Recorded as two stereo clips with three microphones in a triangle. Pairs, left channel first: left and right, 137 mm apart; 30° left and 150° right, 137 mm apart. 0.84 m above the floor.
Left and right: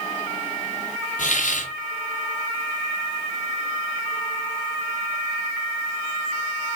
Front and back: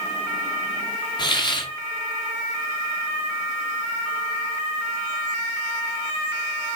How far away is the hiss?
About 1.9 m.